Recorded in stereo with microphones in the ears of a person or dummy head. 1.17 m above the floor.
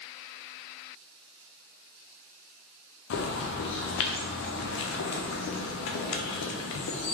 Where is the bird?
65° left (ahead or behind), 0.5 m.